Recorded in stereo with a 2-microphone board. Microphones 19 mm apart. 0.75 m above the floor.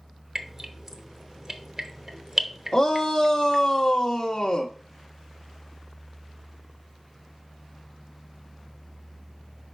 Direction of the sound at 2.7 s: 40° left (ahead or behind).